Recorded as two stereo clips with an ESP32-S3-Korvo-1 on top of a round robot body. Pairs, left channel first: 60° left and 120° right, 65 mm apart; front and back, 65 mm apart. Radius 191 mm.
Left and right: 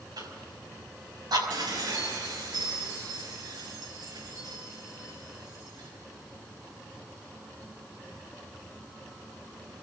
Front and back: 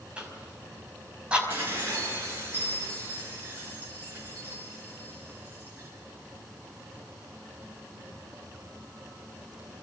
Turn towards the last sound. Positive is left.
turn(degrees=-120)